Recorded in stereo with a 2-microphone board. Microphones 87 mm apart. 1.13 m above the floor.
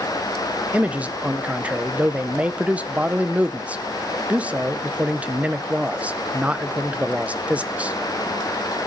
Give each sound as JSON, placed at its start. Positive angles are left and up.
{"t": 0.7, "sound": "a man speaking", "side_deg": -15, "distance_m": 0.8}